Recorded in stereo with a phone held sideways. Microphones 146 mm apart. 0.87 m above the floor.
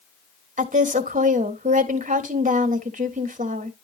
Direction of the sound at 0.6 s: 60° right (ahead or behind).